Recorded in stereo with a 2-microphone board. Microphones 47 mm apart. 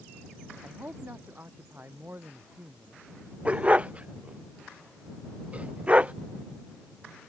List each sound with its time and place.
0.6 s a man speaking: 45° right (ahead or behind)
3.5 s a dog barking: 25° right (ahead or behind)